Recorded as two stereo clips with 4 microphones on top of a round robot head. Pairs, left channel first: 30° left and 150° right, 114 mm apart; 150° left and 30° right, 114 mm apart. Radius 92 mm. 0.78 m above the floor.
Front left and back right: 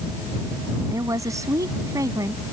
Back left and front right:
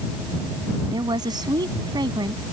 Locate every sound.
0.9 s a woman speaking: 85° right